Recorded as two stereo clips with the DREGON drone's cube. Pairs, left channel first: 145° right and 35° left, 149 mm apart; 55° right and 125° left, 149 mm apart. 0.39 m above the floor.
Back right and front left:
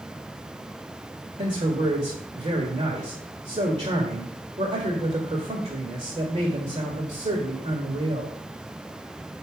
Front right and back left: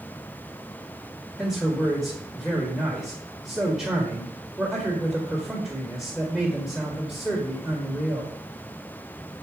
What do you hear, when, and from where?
1.4 s a man speaking: 40° left, 1.5 m